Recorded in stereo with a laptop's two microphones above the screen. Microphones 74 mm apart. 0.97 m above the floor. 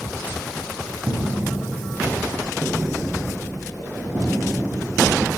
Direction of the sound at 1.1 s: 45° right (ahead or behind).